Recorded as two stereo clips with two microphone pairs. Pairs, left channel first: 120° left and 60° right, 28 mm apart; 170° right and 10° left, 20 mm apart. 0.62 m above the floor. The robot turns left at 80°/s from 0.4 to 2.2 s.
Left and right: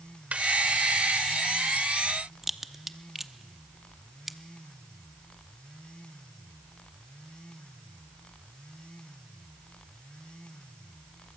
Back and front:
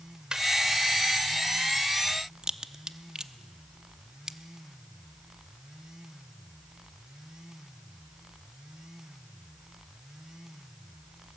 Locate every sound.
0.3 s laughter: 35° right, 2.5 m
2.4 s a crack: 15° left, 0.7 m